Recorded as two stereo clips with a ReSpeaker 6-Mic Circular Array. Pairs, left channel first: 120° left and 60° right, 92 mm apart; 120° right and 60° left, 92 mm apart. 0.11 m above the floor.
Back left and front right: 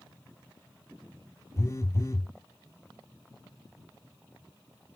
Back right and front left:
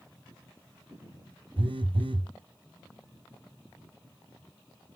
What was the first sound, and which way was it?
A phone buzzing, 65° left.